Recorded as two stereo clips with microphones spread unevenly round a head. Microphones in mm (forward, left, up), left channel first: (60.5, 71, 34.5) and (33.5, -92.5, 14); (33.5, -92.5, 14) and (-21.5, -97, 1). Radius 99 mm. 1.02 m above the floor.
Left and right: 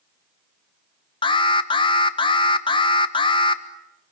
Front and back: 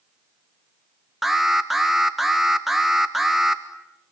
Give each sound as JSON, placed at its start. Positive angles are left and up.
{"t": 1.2, "sound": "an alarm", "azimuth_deg": 125, "distance_m": 1.3}